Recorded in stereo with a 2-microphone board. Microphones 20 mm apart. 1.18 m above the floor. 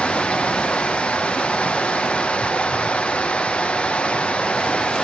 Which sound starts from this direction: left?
Running water, at 0.0 s.